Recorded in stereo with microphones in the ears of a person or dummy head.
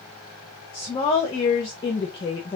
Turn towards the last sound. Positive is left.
turn(degrees=25)  # may be behind; listen again after turning